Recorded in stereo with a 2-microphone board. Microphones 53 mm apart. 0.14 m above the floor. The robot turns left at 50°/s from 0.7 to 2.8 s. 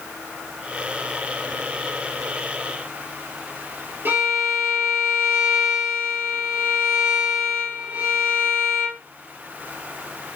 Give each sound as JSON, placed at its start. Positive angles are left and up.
{"t": 4.0, "sound": "a violin", "side_deg": -45, "distance_m": 2.5}